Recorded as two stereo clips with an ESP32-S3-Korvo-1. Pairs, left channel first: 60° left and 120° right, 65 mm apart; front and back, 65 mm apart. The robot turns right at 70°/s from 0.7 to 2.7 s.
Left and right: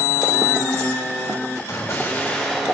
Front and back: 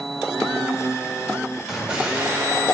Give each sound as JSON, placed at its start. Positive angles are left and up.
{"t": 1.7, "sound": "an explosion", "azimuth_deg": 90, "distance_m": 1.8}